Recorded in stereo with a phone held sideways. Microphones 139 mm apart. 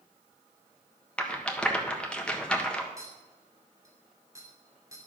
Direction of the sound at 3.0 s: 20° right (ahead or behind).